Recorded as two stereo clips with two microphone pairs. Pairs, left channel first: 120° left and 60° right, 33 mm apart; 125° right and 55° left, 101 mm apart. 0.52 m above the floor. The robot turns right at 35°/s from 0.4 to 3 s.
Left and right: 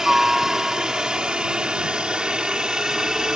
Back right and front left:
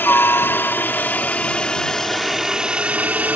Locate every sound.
0.0 s a helicopter: 110° right; by 3.4 s 5° right